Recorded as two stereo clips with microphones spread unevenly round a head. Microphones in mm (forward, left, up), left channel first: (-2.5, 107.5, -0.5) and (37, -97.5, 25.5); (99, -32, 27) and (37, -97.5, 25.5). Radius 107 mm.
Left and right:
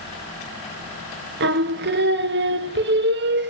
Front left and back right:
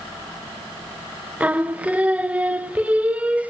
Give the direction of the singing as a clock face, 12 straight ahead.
2 o'clock.